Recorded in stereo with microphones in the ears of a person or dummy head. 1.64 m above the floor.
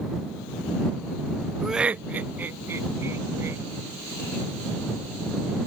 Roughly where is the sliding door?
I don't hear a sliding door.